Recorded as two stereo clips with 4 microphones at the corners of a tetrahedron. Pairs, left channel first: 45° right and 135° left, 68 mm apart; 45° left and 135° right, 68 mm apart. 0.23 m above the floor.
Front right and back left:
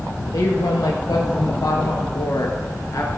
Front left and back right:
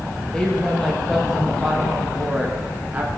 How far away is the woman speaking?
About 4 m.